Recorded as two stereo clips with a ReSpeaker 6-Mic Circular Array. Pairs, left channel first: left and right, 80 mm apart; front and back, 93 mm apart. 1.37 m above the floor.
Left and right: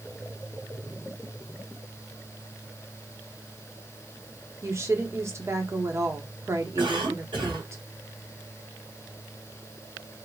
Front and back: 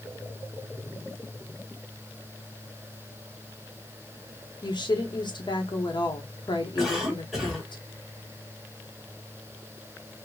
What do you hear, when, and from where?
4.6 s a woman speaking: 35° right, 1.1 m
6.8 s a cough: 95° right, 2.5 m